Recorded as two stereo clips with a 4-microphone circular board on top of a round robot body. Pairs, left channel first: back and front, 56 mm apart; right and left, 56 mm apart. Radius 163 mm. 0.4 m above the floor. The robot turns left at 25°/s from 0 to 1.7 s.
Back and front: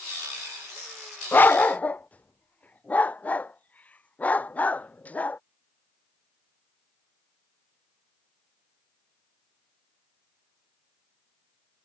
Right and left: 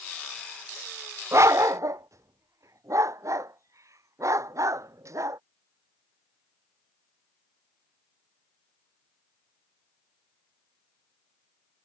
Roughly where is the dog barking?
Behind left.